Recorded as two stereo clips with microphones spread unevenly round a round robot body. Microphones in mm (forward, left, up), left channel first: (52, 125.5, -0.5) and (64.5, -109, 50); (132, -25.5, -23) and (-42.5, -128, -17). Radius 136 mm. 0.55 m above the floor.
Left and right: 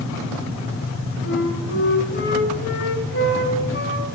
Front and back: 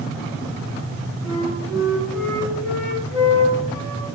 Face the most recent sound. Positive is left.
turn(degrees=50)